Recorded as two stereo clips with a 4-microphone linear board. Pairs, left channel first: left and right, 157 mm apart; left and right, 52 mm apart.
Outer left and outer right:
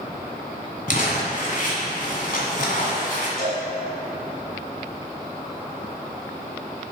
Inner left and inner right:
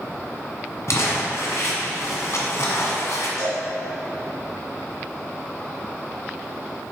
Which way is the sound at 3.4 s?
65° left (ahead or behind).